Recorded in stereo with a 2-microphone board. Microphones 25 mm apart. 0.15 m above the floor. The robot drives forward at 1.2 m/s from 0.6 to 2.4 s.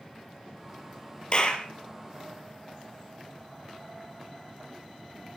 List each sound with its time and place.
1.3 s a clap: 40° left (ahead or behind), 3 m; by 1.7 s 35° left (ahead or behind), 3 m